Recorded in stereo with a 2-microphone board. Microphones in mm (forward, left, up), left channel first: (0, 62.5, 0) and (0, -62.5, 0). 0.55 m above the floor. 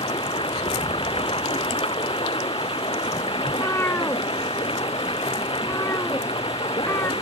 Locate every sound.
0.0 s running water: 45° left (ahead or behind)
3.5 s a cat meowing: 20° left (ahead or behind)